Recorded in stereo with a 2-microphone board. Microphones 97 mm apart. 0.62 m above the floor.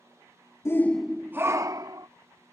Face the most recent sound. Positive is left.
turn(degrees=-45)  # may be behind; listen again after turning